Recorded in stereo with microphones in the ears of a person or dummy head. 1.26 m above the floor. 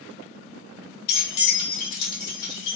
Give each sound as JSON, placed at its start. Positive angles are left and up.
{"t": 1.1, "sound": "keys jangling", "side_deg": 55, "distance_m": 0.9}